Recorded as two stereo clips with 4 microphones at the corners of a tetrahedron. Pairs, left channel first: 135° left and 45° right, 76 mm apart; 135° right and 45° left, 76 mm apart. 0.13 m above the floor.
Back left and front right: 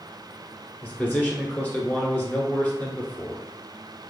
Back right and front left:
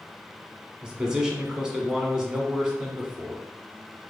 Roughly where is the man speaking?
Left.